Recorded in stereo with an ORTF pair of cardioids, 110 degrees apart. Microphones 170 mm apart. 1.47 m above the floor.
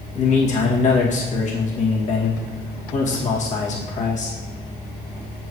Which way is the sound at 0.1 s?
45° left.